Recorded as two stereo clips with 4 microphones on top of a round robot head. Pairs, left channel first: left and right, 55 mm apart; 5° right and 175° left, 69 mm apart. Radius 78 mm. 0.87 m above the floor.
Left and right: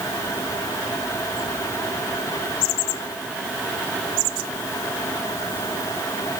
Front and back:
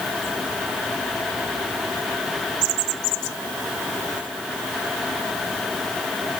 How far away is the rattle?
I don't hear a rattle.